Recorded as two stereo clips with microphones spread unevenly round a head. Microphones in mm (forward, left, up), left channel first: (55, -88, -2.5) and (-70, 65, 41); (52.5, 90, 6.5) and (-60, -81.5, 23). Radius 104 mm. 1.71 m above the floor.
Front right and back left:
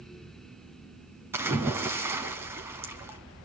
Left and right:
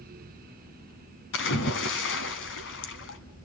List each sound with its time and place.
1.3 s a splash: 65° left, 2.5 m